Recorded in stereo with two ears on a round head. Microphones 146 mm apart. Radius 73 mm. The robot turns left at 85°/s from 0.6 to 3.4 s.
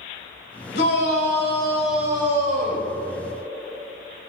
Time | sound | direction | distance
0.7 | a shout | 95° left | 2.5 m